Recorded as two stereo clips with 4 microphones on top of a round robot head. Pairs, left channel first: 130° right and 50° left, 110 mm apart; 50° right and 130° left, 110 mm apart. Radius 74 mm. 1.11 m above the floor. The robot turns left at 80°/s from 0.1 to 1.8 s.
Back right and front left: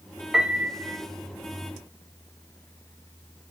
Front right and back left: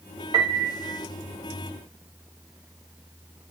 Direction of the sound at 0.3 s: 140° left.